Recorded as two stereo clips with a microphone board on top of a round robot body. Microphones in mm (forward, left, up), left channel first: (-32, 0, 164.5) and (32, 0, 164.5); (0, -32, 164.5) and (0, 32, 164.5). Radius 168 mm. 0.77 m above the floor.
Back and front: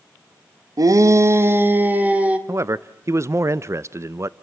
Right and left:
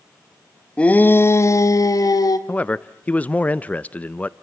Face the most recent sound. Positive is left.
turn(degrees=-25)